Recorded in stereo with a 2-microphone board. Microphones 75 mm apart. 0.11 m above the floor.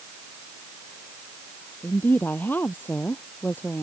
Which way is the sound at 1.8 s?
25° left (ahead or behind).